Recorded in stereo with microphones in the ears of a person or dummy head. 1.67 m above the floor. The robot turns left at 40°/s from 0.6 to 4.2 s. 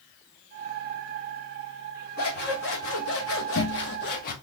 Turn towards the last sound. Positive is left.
turn(degrees=55)